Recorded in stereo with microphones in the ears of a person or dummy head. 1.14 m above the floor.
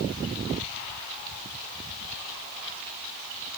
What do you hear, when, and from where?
Only background noise.